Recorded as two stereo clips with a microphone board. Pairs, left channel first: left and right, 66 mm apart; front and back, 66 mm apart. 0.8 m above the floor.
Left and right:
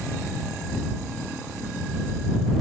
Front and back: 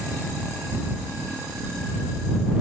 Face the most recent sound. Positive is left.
No sound to turn to.